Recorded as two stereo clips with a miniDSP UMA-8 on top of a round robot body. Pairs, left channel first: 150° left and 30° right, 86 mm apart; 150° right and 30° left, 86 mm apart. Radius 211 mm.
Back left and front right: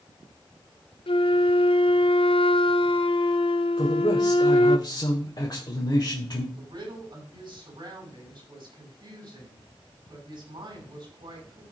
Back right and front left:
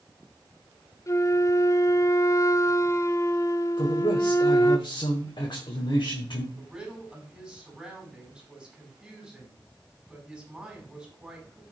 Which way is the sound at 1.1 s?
155° left.